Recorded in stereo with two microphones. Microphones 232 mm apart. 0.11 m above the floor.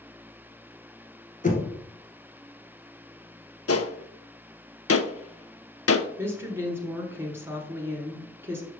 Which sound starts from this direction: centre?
A woman speaking, at 6.2 s.